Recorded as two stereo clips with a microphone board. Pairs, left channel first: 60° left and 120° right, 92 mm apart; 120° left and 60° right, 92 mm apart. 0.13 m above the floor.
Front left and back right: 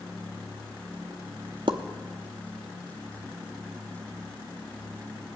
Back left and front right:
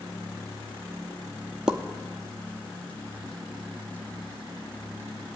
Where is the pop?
140° right, 0.9 m.